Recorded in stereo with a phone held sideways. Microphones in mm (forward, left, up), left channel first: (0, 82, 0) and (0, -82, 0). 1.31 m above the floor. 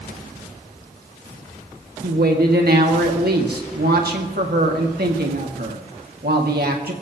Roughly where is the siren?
I don't hear a siren.